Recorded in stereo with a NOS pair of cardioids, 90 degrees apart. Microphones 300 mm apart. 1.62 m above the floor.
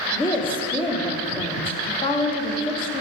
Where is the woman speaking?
15° left, 1.2 m.